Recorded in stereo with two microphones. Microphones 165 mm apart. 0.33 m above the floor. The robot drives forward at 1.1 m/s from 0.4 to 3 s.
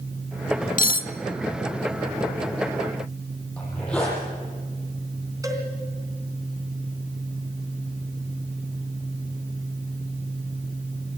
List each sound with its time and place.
0.8 s cutlery clinking: 55° left (ahead or behind), 0.8 m; by 1.1 s 60° left (ahead or behind), 0.8 m
3.6 s a zipper: 5° left (ahead or behind), 7.5 m
5.4 s a cowbell: 20° right (ahead or behind), 3 m